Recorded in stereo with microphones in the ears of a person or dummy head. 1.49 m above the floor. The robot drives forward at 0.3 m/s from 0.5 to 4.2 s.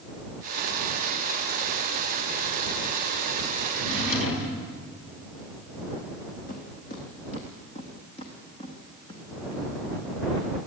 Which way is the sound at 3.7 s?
75° left (ahead or behind).